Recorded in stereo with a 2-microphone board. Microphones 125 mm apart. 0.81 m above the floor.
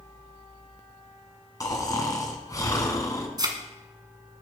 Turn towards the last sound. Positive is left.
turn(degrees=-35)  # may be behind; listen again after turning